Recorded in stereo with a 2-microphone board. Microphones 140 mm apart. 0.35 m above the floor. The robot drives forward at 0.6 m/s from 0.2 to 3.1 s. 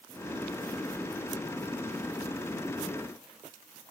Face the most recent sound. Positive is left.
No sound to turn to.